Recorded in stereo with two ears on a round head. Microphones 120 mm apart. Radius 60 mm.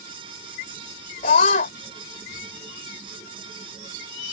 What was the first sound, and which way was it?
A scream, 65° left (ahead or behind).